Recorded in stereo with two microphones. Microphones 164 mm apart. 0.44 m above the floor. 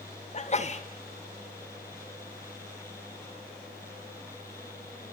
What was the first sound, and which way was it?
A sneeze, 40° left (ahead or behind).